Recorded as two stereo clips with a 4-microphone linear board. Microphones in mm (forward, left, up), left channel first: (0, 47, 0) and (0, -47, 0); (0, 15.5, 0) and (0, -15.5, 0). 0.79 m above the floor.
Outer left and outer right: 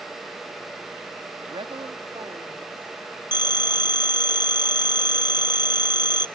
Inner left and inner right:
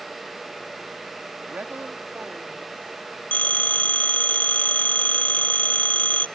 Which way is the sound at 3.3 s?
45° left (ahead or behind).